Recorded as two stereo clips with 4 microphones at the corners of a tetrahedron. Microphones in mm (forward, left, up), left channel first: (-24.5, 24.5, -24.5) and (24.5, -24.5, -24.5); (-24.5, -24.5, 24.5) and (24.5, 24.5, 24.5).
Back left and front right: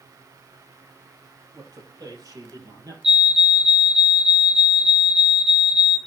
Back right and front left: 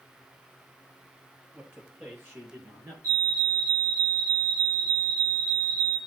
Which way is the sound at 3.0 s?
35° left.